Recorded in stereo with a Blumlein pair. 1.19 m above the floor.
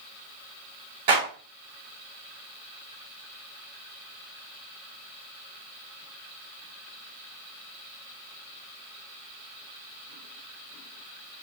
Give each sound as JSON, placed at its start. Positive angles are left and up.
{"t": 1.1, "sound": "a clap", "azimuth_deg": -55, "distance_m": 5.5}